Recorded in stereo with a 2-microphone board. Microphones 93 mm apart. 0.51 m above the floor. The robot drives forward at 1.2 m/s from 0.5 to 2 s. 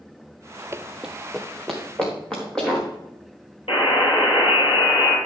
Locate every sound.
0.7 s running footsteps: 30° right (ahead or behind), 0.5 m; by 2.9 s 10° left (ahead or behind), 4.5 m
3.7 s a buzzer: 75° left (ahead or behind), 3.5 m